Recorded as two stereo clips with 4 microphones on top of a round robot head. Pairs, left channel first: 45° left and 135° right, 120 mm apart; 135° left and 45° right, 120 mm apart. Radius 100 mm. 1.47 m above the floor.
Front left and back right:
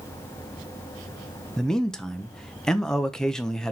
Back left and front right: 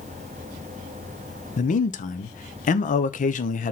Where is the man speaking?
130° left, 1.0 m.